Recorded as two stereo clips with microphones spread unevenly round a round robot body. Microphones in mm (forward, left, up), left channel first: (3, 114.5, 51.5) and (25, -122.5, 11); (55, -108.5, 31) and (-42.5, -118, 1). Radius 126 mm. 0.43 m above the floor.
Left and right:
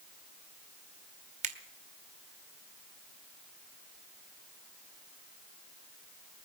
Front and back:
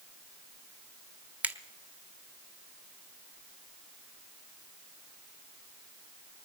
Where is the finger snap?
120° right, 1.2 m.